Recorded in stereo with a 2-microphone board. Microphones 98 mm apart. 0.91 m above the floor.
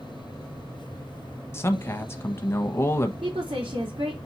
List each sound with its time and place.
1.5 s a man speaking: 25° left (ahead or behind), 0.9 m
3.2 s a woman speaking: 60° right (ahead or behind), 2 m